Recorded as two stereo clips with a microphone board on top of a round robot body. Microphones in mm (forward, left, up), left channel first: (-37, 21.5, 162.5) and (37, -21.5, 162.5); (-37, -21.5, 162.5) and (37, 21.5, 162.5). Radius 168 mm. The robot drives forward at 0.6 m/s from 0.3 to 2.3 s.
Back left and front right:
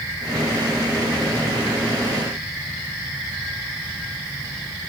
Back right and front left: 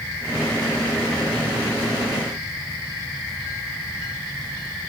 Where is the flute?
I don't hear a flute.